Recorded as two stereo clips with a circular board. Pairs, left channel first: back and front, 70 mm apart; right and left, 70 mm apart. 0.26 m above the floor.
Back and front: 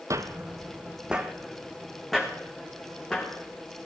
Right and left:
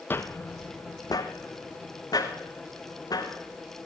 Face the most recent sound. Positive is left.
turn(degrees=-100)